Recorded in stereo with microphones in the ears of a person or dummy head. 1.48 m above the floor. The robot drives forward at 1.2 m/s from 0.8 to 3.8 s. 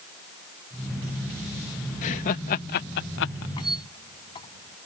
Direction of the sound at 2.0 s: 40° left (ahead or behind).